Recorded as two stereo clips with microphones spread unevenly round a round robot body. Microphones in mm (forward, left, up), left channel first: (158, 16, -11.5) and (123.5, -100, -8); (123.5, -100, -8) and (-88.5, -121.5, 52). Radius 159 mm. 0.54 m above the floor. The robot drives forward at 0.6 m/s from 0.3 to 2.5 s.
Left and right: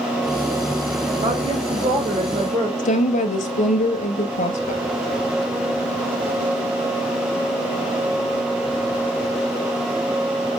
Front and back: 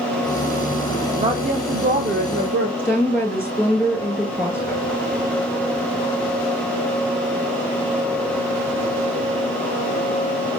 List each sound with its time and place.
1.2 s a woman speaking: 100° right, 1.5 m; by 2.7 s 130° right, 1.8 m
2.8 s a woman speaking: 95° left, 2 m